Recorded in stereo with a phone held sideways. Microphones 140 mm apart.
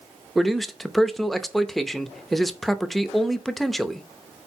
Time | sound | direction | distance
0.3 | a man speaking | centre (ahead or behind) | 0.6 m